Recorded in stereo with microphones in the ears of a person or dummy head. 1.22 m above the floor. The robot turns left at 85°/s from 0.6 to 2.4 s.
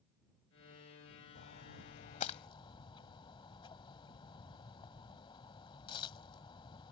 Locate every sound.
1.4 s a splash: 50° left (ahead or behind); by 6.9 s 25° left (ahead or behind)